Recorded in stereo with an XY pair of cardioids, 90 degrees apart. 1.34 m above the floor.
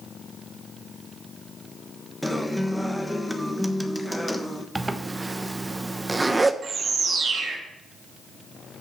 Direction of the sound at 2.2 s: Straight ahead.